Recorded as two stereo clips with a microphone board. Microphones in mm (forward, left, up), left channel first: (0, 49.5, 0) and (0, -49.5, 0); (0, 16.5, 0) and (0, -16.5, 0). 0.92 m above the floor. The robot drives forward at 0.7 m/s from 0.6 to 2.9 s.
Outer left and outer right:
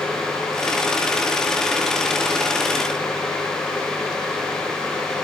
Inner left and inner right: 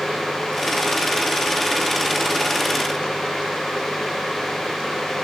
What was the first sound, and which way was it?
Only background noise.